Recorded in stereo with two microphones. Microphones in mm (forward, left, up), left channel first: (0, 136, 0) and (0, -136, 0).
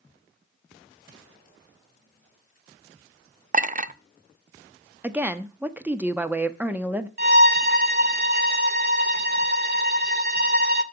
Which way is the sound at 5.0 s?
5° right (ahead or behind).